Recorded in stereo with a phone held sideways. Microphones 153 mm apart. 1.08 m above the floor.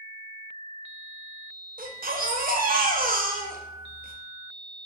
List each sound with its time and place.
1.8 s a baby crying: 70° right (ahead or behind), 0.5 m